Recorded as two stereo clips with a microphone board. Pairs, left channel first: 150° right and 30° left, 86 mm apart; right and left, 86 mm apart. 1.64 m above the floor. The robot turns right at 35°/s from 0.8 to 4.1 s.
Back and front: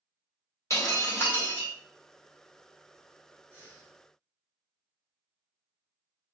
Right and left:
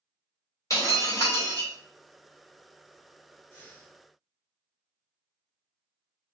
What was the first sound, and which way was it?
Breaking glass, 115° right.